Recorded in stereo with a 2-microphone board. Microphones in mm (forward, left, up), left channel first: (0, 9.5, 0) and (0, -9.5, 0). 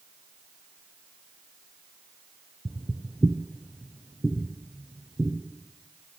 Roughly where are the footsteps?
Right.